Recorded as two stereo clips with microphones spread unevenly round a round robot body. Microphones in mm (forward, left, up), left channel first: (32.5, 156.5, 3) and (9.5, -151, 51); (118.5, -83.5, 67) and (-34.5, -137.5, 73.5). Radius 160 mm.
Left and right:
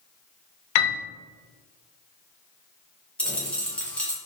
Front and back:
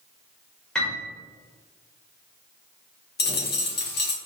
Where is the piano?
105° left, 0.7 m.